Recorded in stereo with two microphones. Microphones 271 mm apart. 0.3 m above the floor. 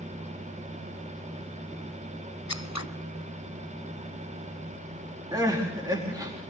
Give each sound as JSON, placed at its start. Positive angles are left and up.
{"t": 2.5, "sound": "scissors", "side_deg": 75, "distance_m": 0.7}
{"t": 5.3, "sound": "crying", "side_deg": -15, "distance_m": 5.0}